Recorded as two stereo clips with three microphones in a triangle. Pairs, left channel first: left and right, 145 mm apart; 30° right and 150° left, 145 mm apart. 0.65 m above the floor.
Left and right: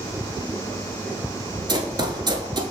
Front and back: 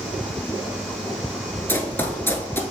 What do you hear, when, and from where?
1.7 s running footsteps: 90° right, 0.7 m